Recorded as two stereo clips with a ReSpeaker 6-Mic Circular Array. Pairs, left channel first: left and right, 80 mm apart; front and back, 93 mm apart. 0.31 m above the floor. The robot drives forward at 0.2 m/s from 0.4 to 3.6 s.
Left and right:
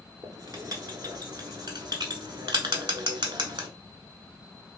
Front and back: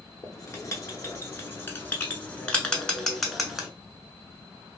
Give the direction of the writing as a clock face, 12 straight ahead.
2 o'clock.